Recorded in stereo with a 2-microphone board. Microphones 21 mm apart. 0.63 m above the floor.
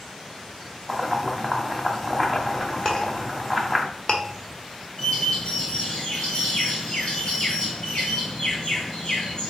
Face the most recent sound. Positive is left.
turn(degrees=50)  # may be behind; listen again after turning